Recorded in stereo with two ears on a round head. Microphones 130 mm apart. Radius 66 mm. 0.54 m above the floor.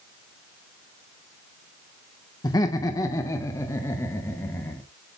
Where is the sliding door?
No sliding door in this recording.